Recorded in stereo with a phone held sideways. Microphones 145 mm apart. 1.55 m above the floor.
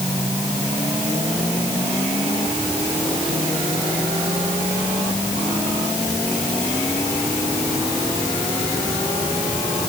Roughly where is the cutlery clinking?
No cutlery clinking in this recording.